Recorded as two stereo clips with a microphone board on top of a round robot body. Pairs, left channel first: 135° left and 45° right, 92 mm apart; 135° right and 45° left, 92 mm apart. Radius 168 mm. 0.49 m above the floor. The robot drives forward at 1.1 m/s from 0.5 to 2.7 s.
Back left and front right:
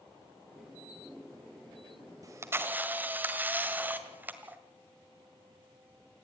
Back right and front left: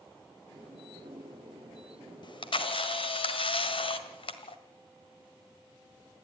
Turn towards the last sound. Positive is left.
turn(degrees=-115)